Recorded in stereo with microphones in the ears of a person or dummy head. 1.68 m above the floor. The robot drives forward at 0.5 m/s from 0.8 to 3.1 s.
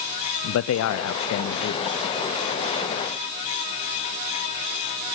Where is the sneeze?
I don't hear a sneeze.